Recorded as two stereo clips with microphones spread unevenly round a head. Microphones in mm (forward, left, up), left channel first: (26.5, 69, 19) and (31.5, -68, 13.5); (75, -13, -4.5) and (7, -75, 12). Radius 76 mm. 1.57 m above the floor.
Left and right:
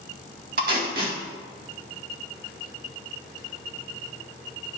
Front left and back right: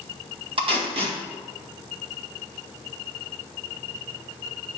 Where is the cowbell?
I don't hear a cowbell.